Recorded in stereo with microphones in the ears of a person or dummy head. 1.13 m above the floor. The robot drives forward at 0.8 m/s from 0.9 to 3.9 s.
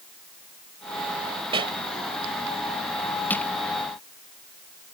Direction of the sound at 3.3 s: 5° left (ahead or behind).